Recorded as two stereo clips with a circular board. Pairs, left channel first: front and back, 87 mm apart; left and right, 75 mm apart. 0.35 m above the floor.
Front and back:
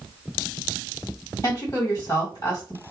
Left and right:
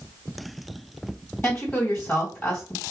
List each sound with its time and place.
1.4 s a woman speaking: 35° left, 1.9 m